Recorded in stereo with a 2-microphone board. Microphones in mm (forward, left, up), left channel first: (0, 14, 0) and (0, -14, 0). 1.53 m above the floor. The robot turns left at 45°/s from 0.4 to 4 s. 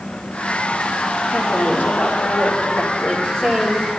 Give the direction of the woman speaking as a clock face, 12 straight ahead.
8 o'clock.